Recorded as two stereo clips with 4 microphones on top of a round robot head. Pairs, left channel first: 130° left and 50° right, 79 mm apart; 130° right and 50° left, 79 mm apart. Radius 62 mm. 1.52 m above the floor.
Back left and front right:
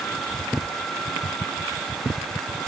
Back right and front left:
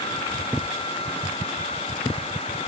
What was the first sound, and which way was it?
Only background noise.